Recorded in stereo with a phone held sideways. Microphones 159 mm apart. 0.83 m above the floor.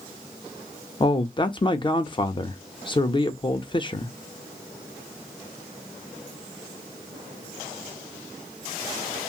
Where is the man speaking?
30° left (ahead or behind), 0.6 m.